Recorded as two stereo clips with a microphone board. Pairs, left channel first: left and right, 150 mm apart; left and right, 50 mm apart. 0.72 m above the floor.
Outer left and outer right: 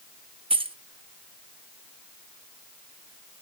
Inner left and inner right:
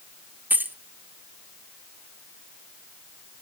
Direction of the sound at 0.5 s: 35° right (ahead or behind).